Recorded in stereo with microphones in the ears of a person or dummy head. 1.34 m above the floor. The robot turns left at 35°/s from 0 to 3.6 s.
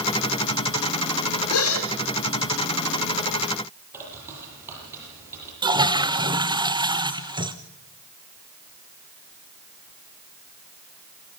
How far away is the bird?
About 9 m.